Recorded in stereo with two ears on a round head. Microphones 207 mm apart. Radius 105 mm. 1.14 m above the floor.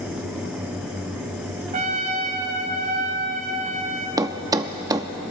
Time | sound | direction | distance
1.7 | a trumpet | 35° right (ahead or behind) | 1.8 m
4.2 | a thud | 15° right (ahead or behind) | 0.6 m